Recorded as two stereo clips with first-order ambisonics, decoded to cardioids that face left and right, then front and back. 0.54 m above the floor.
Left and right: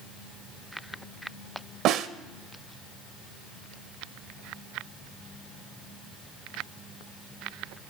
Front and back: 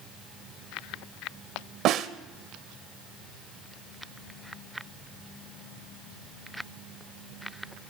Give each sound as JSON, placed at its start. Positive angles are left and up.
{"t": 1.9, "sound": "a snare drum", "azimuth_deg": -135, "distance_m": 0.5}